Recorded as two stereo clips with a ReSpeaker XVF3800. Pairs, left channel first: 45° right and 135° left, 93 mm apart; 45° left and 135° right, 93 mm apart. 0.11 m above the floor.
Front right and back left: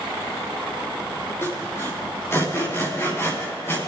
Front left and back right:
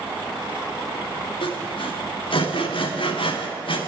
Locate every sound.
1.4 s sawing: 20° left, 4 m